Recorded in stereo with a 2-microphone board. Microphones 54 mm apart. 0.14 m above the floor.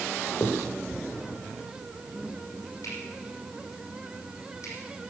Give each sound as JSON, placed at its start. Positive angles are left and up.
{"t": 0.4, "sound": "a finger snap", "side_deg": 70, "distance_m": 6.0}